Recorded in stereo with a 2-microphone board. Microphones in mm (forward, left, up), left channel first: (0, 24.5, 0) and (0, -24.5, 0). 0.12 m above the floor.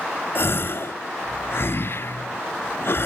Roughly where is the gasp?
Left.